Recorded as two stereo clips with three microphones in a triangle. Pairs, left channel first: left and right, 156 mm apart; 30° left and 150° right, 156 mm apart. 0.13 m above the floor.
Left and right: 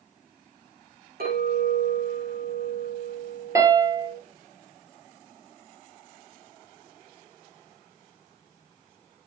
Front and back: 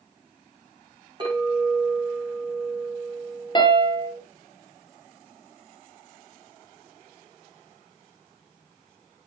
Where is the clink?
90° right, 6.5 m.